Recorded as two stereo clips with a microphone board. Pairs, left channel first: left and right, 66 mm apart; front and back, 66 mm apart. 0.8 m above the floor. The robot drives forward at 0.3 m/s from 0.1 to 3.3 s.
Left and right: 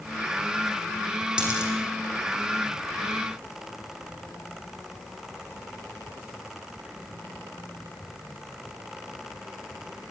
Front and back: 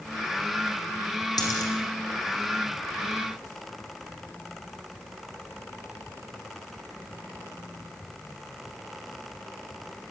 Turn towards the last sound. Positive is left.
turn(degrees=-15)